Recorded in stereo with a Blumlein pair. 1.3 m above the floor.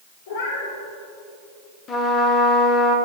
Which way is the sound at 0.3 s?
60° left.